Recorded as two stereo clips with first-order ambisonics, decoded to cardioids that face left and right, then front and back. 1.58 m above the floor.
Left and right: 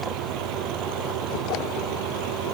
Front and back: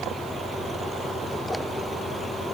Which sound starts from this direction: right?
An engine running, at 0.0 s.